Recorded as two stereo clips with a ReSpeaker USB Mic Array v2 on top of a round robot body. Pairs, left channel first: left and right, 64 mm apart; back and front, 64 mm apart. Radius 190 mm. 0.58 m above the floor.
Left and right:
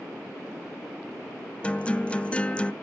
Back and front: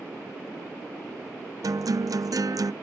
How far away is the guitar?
About 0.6 m.